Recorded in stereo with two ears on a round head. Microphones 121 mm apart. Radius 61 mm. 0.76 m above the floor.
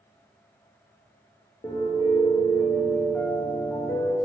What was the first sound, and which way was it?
A piano, 20° left (ahead or behind).